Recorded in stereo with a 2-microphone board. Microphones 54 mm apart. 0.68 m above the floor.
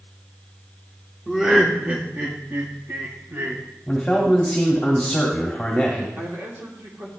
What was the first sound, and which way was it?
Laughter, 10° right (ahead or behind).